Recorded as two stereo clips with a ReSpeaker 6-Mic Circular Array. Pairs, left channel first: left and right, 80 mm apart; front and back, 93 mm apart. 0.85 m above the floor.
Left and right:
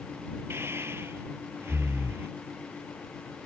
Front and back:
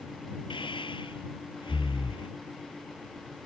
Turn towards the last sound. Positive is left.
turn(degrees=-30)